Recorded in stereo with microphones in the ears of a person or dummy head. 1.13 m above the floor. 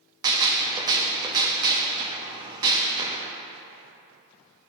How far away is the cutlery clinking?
No cutlery clinking in this recording.